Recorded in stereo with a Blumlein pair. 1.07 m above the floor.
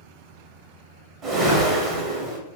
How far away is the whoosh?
About 1.2 m.